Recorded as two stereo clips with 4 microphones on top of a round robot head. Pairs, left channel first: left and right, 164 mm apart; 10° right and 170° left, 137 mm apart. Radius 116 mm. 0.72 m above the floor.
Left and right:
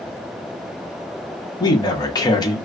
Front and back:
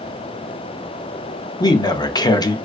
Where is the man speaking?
35° left, 0.6 m.